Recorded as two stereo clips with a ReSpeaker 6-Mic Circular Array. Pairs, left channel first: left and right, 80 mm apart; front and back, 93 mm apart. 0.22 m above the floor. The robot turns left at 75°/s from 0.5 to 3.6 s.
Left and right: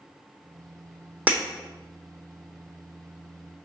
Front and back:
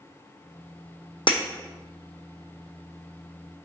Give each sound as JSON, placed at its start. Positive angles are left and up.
{"t": 1.3, "sound": "breaking glass", "azimuth_deg": -20, "distance_m": 0.8}